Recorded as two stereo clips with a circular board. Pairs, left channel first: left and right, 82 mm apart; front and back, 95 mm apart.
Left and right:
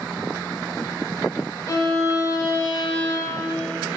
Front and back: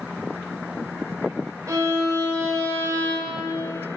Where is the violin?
130° left, 1.3 m.